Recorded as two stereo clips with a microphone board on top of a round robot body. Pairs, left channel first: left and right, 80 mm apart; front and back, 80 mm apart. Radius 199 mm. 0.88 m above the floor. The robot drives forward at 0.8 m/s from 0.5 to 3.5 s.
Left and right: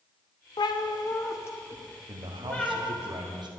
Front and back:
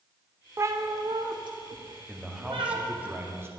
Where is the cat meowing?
120° left, 0.7 m; by 2.8 s 165° left, 2 m.